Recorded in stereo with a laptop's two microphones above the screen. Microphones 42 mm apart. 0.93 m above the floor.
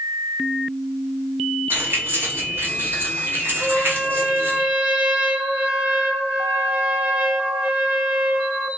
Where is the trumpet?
30° right (ahead or behind), 0.6 m.